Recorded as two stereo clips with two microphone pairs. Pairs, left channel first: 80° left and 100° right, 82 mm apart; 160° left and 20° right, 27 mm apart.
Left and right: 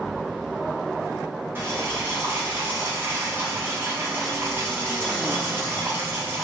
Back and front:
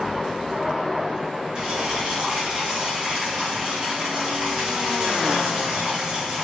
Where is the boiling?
55° right, 1.8 m.